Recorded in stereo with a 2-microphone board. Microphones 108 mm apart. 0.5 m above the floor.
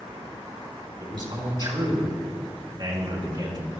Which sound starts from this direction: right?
A man speaking, at 1.0 s.